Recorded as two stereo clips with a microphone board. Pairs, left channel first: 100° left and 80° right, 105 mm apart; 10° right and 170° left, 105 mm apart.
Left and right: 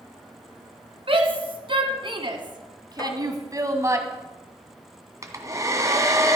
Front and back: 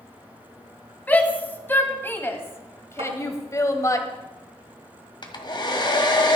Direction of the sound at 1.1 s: 80° right.